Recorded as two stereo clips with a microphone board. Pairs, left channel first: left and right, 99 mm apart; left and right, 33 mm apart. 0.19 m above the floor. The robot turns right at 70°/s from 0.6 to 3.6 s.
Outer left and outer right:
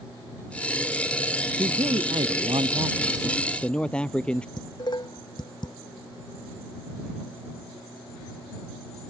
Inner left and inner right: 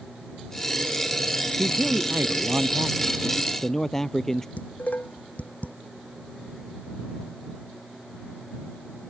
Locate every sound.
1.6 s a man speaking: 130° right; by 4.5 s 10° left
4.6 s dishes clattering: 50° left (ahead or behind)